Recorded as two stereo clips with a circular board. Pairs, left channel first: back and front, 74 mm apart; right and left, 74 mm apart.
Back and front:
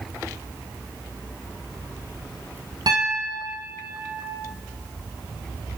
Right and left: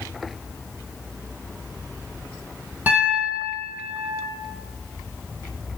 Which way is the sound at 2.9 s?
20° left.